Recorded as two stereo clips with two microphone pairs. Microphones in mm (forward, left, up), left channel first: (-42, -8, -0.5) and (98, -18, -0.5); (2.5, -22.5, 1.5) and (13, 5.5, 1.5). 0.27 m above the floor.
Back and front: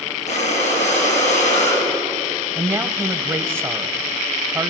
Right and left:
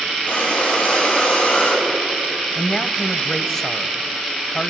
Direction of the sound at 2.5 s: 60° right.